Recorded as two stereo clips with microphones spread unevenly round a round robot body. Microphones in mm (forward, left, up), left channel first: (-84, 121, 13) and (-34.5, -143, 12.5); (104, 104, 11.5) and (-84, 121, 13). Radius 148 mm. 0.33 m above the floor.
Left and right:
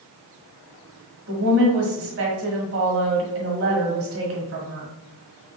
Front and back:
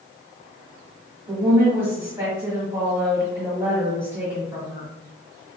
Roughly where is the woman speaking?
Right.